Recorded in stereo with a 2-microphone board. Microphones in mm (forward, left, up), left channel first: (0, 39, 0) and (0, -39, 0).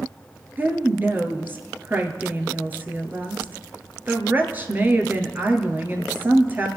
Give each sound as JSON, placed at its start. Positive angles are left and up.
{"t": 0.6, "sound": "a woman speaking", "side_deg": -25, "distance_m": 1.9}